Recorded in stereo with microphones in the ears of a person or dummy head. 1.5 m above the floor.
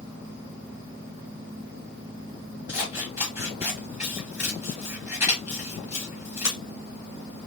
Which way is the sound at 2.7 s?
10° right (ahead or behind).